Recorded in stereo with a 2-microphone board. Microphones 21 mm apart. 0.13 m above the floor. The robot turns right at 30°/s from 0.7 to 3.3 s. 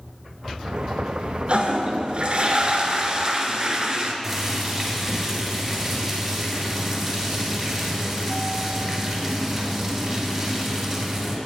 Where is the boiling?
5° right (ahead or behind), 2 m.